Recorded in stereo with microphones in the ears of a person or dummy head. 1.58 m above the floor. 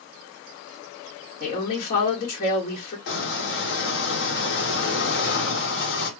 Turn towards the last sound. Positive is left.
turn(degrees=65)  # may be behind; listen again after turning